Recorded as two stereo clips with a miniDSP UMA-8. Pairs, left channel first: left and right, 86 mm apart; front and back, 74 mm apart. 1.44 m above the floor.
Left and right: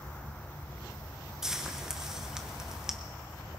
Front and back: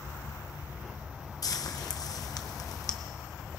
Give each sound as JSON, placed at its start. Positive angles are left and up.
{"t": 1.4, "sound": "frying", "azimuth_deg": -10, "distance_m": 0.8}